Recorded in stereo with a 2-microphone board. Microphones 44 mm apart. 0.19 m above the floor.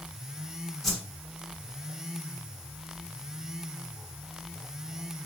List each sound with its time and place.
0.8 s a whoosh: 5° left (ahead or behind), 0.9 m